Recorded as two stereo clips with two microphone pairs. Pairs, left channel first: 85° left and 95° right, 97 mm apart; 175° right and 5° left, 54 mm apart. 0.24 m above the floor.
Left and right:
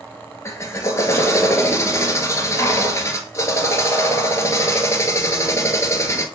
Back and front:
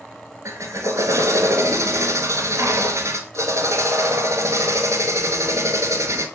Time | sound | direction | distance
0.5 | a drill | 25° left | 1.4 m